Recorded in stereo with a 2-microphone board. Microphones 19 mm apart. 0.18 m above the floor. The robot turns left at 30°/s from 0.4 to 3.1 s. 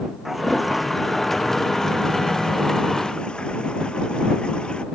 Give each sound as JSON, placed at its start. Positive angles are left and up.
{"t": 0.2, "sound": "a toilet flushing", "azimuth_deg": -165}